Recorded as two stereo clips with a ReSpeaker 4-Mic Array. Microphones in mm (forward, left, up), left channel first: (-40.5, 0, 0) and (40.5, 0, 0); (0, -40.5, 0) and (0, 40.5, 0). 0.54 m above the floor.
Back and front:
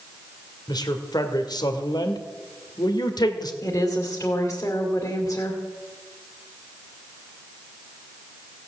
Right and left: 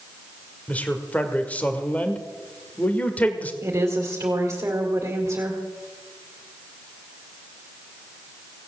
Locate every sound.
0.7 s a man speaking: 160° right, 1.8 m
3.6 s a woman speaking: 130° left, 2.5 m